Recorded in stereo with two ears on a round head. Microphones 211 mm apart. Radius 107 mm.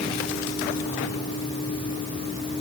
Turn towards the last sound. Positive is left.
No sound to turn to.